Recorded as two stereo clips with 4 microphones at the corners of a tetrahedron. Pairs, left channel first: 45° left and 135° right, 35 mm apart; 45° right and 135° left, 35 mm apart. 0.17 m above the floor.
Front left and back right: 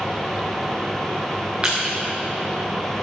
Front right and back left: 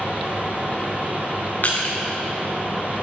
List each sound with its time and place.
1.6 s crushing: 75° right, 3 m